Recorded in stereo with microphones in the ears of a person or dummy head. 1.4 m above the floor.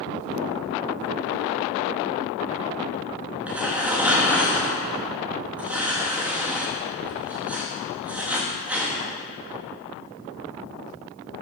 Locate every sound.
3.5 s tearing paper: 5° right (ahead or behind), 1.0 m